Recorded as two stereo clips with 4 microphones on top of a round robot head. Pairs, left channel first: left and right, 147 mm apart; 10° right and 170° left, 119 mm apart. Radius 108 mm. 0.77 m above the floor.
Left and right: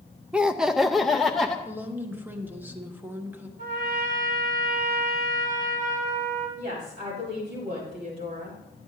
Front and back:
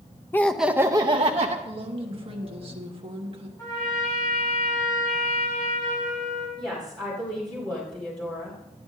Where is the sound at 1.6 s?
165° right, 1.2 m.